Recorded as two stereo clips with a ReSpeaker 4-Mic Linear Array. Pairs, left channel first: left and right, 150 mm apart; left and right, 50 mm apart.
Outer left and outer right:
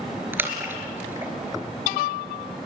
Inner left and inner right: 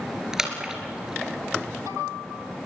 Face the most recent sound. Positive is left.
turn(degrees=-15)  # may be behind; listen again after turning